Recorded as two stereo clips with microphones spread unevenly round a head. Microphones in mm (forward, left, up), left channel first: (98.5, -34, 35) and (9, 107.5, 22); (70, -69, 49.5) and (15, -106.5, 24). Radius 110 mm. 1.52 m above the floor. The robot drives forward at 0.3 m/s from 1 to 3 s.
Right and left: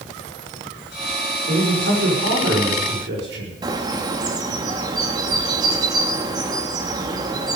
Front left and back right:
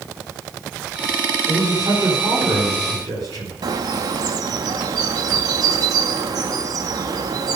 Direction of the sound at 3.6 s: 175° right.